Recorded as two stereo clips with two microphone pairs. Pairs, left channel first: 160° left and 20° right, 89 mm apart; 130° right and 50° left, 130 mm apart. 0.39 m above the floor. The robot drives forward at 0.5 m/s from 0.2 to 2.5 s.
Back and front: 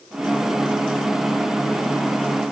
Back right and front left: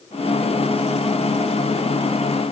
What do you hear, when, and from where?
Only background noise.